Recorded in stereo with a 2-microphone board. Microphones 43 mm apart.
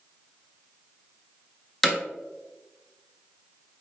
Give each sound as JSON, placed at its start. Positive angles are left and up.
{"t": 1.8, "sound": "hammering", "side_deg": 5, "distance_m": 1.6}